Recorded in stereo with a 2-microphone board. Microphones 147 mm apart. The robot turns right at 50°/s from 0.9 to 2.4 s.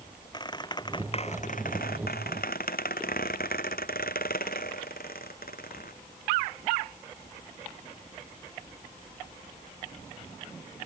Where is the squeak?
30° left; by 5.9 s 105° left.